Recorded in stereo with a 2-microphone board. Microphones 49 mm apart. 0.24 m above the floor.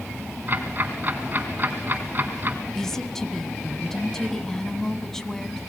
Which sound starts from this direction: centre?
A woman speaking, at 2.7 s.